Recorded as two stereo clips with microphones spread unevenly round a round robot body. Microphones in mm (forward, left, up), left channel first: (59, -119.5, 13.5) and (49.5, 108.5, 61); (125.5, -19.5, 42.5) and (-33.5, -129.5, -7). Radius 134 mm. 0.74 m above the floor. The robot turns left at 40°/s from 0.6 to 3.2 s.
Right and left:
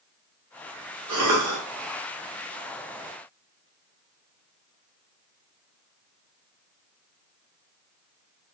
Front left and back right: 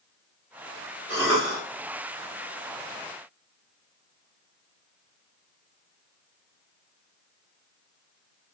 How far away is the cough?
About 1.4 m.